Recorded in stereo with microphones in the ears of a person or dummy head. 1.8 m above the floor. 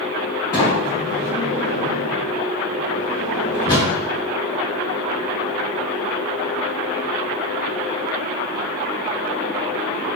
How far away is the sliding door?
About 1.8 m.